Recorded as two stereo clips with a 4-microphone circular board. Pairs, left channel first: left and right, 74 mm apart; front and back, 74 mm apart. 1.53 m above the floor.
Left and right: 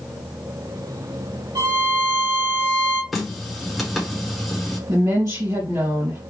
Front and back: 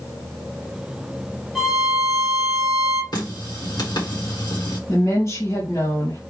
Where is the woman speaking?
55° right, 2.5 m.